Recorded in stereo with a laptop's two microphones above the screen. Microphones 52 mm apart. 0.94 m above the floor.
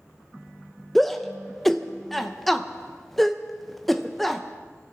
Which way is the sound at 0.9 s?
5° left (ahead or behind).